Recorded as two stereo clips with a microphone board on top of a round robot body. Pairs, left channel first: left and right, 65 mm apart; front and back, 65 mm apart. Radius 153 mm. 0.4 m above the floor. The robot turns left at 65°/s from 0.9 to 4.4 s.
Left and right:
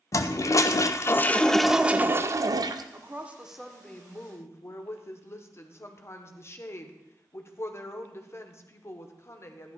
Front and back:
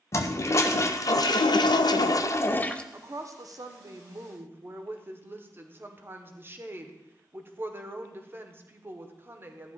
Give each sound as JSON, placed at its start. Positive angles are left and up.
{"t": 0.1, "sound": "a toilet flushing", "azimuth_deg": 50, "distance_m": 0.6}
{"t": 2.9, "sound": "a woman speaking", "azimuth_deg": -135, "distance_m": 1.3}